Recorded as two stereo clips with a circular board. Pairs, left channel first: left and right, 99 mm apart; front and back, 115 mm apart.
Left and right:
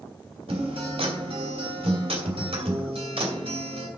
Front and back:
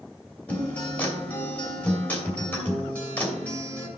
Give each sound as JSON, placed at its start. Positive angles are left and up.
{"t": 0.5, "sound": "a guitar", "azimuth_deg": -75, "distance_m": 2.5}